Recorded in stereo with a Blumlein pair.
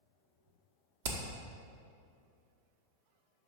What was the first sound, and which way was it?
Hammering, 55° right.